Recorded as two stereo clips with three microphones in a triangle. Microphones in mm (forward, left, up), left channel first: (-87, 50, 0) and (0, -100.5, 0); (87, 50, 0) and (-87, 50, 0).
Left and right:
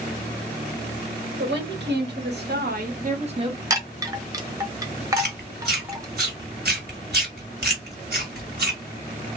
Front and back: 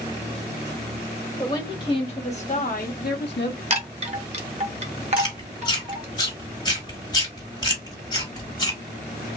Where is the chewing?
60° right, 2.0 m.